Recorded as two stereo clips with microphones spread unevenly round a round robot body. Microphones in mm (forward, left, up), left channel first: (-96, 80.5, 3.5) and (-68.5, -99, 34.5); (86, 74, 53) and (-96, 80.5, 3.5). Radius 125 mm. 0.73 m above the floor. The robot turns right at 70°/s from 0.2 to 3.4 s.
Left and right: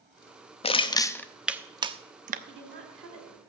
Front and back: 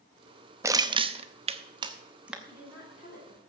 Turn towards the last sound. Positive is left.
turn(degrees=-45)